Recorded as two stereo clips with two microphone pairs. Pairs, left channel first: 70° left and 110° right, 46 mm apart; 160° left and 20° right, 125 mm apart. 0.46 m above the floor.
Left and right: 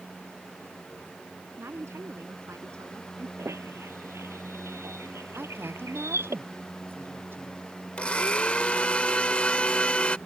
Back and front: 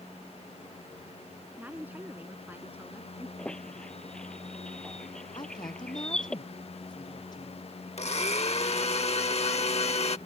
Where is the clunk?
I don't hear a clunk.